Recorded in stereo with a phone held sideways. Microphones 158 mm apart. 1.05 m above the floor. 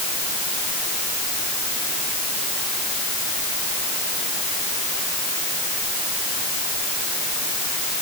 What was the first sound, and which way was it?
Only background noise.